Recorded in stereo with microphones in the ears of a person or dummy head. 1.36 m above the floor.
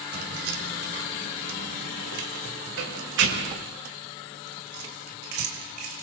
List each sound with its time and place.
0.1 s keys jangling: 65° right (ahead or behind), 4 m; by 6.0 s 60° right (ahead or behind), 4.5 m